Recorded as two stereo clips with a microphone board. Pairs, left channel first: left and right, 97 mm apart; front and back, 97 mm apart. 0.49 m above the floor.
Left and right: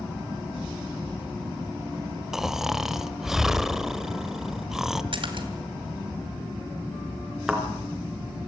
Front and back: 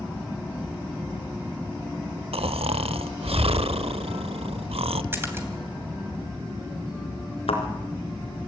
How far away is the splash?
About 2.5 m.